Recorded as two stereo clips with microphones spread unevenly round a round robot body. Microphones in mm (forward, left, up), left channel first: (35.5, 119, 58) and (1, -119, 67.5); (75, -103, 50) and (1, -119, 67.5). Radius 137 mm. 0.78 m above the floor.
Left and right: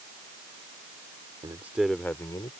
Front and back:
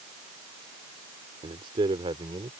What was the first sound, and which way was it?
A man speaking, 175° right.